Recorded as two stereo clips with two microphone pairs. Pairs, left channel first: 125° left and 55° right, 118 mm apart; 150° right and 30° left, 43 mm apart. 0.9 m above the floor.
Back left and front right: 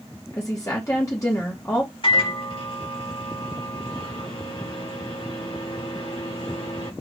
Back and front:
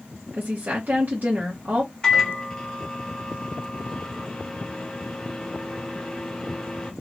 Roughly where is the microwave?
Behind left.